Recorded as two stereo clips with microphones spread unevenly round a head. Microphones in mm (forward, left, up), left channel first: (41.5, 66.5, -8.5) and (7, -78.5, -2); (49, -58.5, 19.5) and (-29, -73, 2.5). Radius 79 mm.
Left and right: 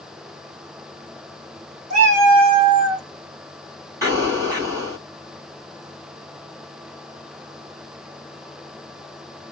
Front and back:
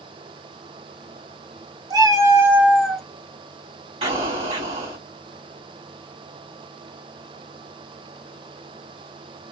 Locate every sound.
1.9 s a cat meowing: 130° right, 1.9 m; by 3.0 s 55° right, 1.3 m
4.0 s an explosion: 175° right, 2.5 m